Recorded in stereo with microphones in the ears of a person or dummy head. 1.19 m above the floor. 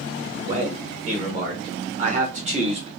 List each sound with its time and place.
0.5 s a man speaking: 40° right (ahead or behind), 1.8 m; by 2.9 s 30° right (ahead or behind), 0.6 m